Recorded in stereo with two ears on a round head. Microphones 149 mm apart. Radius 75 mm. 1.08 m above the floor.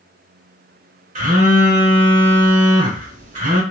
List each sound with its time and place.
1.1 s a phone buzzing: 55° right (ahead or behind), 1.8 m